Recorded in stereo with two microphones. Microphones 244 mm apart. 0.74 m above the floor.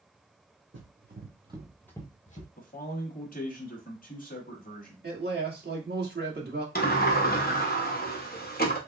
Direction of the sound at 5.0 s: 40° right (ahead or behind).